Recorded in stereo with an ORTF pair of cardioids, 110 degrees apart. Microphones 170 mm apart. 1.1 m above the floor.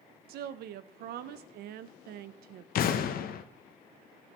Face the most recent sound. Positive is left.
turn(degrees=60)